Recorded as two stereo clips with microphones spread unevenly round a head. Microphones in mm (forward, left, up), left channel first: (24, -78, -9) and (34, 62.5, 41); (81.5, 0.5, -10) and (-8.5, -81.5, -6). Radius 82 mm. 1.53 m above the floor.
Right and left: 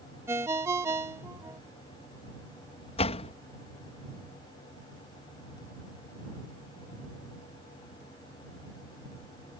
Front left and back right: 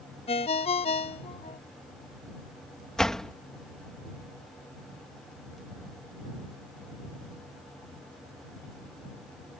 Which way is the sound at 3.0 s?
45° right.